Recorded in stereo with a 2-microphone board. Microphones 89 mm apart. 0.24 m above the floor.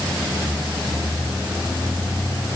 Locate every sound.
Only background noise.